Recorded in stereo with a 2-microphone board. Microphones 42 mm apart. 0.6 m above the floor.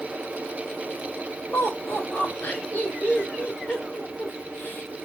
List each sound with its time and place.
1.5 s laughter: 40° left (ahead or behind), 2.5 m